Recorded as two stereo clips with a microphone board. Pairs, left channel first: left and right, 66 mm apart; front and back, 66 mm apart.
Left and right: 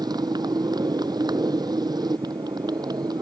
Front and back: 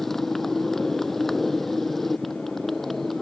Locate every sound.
0.0 s a motorcycle: 90° right